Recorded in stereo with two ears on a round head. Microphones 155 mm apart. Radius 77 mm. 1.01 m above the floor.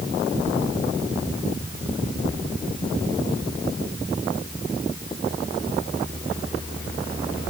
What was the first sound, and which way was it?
Only background noise.